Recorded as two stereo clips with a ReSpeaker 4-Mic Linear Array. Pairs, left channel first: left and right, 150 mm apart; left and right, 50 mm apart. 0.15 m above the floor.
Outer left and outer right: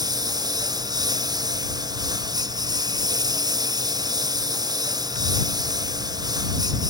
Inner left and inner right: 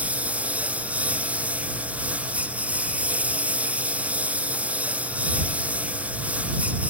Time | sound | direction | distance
0.0 | a lawn mower | 25° right (ahead or behind) | ?